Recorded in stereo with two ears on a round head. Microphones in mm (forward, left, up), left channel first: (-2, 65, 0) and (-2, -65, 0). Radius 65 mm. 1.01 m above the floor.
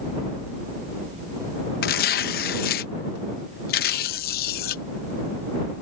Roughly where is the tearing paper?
Left.